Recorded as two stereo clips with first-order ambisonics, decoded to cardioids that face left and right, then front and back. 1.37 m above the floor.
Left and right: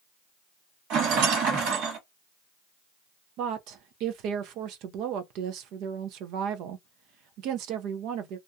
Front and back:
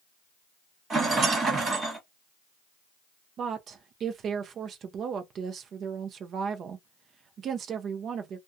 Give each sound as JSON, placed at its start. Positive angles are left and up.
{"t": 0.9, "sound": "a rattle", "azimuth_deg": -115, "distance_m": 1.7}
{"t": 3.4, "sound": "a woman speaking", "azimuth_deg": -125, "distance_m": 0.5}